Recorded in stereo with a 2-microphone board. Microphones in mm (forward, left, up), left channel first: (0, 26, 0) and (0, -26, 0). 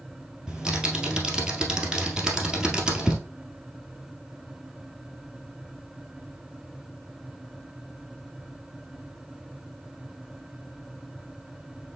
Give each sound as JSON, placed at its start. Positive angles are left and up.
{"t": 0.5, "sound": "typing on a keyboard", "side_deg": -15, "distance_m": 1.7}